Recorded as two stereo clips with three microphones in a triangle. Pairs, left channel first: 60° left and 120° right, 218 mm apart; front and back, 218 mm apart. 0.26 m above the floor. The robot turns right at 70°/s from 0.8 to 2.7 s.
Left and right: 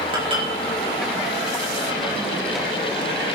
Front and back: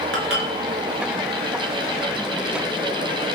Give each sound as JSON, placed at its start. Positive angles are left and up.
{"t": 0.1, "sound": "dishes clattering", "azimuth_deg": 175, "distance_m": 3.0}